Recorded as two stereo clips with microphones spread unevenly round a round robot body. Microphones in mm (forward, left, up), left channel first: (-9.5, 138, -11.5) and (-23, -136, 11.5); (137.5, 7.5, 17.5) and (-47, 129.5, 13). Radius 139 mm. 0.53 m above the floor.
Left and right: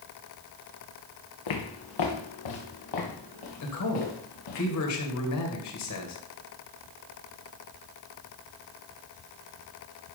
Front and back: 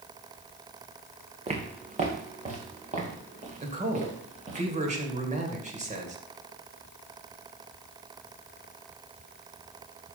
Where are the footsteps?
85° left, 2.5 m; by 4.6 s 90° left, 4.5 m.